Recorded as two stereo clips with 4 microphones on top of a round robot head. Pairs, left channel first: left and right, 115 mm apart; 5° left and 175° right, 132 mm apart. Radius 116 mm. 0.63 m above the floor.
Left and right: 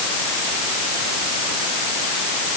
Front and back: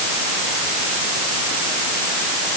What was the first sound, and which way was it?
Only background noise.